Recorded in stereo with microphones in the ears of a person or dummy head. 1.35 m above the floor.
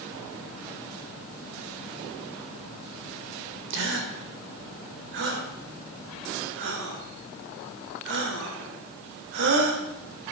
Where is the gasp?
70° right (ahead or behind), 2.5 m.